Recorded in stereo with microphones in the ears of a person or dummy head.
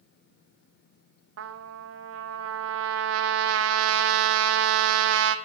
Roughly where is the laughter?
I don't hear laughter.